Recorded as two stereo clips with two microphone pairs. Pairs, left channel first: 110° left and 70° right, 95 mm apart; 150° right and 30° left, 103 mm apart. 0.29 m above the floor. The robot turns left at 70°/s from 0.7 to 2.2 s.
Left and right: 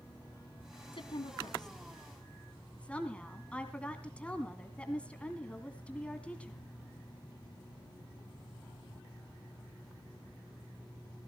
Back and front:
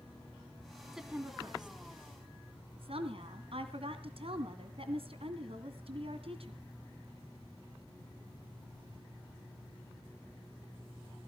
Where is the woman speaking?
120° left, 2 m; by 6.6 s 30° left, 2 m.